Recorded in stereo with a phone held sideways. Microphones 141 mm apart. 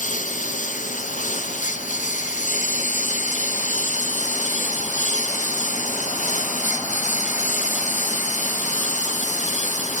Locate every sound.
0.0 s a lawn mower: 60° left (ahead or behind)